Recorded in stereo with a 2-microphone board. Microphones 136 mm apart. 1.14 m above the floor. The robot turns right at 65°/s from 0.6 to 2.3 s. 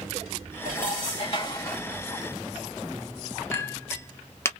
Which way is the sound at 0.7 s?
90° left.